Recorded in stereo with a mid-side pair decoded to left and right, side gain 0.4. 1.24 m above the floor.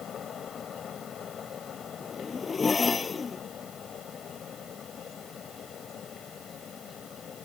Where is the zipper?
35° left.